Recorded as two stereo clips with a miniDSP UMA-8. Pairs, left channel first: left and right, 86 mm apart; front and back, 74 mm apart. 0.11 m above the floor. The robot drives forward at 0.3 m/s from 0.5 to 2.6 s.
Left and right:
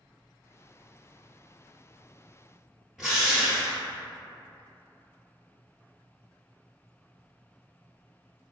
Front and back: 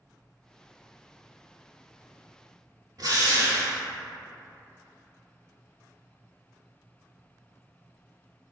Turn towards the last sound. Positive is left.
turn(degrees=-175)